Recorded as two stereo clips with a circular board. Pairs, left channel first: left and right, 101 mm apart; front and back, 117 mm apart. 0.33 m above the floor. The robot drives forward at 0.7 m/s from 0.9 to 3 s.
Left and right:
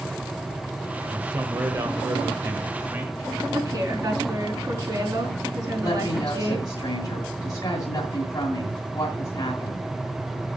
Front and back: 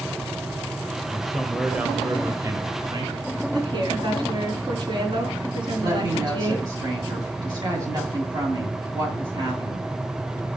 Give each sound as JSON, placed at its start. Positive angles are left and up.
{"t": 1.1, "sound": "a man speaking", "azimuth_deg": -75, "distance_m": 1.4}
{"t": 3.5, "sound": "a woman speaking", "azimuth_deg": -135, "distance_m": 4.5}
{"t": 5.8, "sound": "a woman speaking", "azimuth_deg": 135, "distance_m": 2.5}